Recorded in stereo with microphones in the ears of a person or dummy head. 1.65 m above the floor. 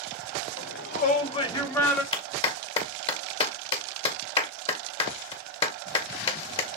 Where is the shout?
65° left (ahead or behind), 1.3 m; by 2.0 s 5° left (ahead or behind), 2.5 m.